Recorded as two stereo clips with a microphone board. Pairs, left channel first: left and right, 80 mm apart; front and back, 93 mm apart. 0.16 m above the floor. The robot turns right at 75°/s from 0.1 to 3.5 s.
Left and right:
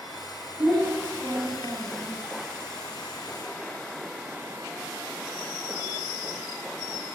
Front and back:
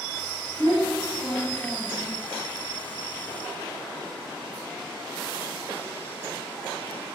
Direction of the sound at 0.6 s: 10° right.